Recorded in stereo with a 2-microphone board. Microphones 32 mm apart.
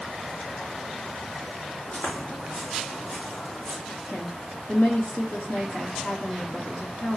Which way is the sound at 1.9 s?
55° left (ahead or behind).